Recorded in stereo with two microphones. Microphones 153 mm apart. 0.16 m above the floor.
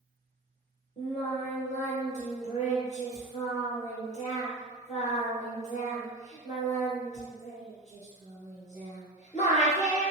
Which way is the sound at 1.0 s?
50° left (ahead or behind).